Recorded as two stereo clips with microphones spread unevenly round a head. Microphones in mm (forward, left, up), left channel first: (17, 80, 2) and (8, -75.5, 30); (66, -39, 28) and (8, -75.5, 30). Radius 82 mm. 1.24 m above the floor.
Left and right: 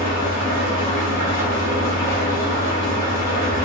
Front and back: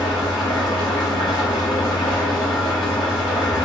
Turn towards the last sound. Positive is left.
turn(degrees=15)